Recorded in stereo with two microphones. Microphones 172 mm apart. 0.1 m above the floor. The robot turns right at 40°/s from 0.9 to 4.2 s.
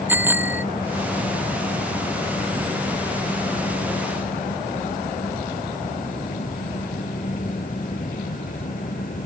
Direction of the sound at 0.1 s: 10° right (ahead or behind).